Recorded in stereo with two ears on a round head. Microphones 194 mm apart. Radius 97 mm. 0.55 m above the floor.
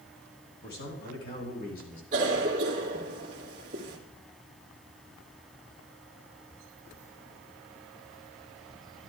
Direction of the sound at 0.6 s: 55° left (ahead or behind).